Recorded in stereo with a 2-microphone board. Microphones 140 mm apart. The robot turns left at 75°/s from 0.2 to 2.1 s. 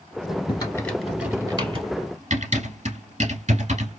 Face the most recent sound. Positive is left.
turn(degrees=-55)  # may be behind; listen again after turning